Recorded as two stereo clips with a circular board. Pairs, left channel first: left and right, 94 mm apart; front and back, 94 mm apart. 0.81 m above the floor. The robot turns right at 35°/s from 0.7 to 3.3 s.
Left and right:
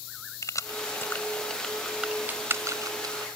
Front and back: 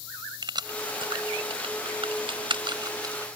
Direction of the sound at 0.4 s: 145° left.